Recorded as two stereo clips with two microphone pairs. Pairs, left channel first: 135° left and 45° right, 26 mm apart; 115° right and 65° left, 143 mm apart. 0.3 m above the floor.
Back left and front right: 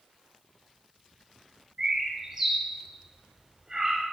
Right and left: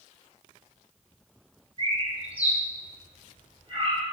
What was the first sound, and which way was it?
A bird, 20° left.